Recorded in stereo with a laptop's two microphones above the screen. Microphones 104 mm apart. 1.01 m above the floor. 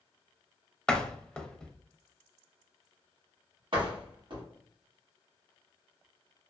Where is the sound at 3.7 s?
50° right (ahead or behind), 1.1 m.